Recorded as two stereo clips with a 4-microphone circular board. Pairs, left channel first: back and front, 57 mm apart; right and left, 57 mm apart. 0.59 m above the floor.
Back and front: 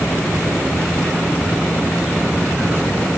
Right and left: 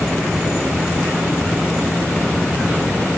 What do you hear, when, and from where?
Only background noise.